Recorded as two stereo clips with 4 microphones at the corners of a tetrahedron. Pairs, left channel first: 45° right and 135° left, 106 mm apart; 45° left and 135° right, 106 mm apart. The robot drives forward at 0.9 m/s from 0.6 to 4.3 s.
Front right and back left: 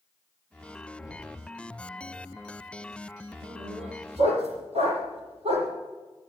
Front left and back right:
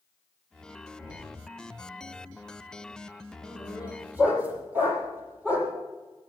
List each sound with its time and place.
1.0 s knocking: straight behind, 7 m
3.4 s a dog barking: 150° left, 6.5 m; by 5.7 s 155° left, 7 m